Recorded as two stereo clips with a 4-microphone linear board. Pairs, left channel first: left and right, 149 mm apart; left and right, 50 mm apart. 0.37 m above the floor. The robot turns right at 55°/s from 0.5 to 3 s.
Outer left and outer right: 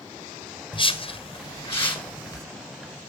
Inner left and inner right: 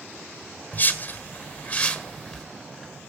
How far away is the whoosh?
About 1.6 m.